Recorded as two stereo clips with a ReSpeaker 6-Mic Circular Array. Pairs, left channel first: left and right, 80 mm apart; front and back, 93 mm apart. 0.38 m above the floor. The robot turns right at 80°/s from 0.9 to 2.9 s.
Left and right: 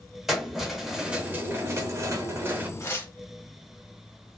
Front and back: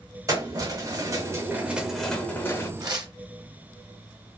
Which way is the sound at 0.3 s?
175° right.